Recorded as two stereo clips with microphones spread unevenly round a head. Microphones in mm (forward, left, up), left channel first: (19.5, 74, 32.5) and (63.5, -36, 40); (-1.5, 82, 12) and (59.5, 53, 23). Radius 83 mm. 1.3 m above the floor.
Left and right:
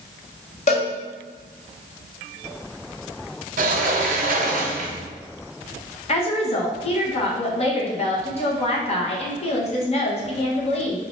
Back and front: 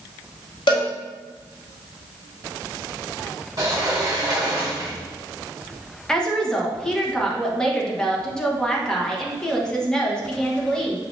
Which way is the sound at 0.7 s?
165° left.